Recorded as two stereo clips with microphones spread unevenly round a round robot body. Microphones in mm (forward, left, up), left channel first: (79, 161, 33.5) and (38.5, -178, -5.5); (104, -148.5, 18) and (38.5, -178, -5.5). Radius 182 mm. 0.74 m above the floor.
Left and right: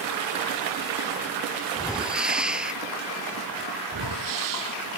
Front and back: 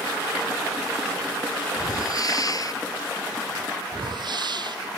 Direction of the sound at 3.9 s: 140° right.